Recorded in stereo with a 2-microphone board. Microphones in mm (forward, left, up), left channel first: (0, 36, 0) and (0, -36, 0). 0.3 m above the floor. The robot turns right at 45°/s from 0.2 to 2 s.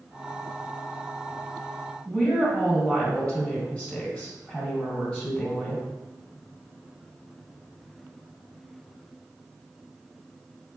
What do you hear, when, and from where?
2.0 s a woman speaking: 20° left (ahead or behind), 1.6 m